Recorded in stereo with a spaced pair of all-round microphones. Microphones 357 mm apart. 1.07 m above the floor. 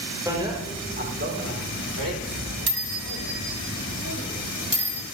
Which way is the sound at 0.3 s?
10° right (ahead or behind).